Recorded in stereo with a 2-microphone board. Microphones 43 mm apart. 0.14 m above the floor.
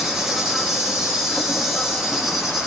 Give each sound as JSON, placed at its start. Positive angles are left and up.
{"t": 0.0, "sound": "an insect", "side_deg": -10, "distance_m": 9.0}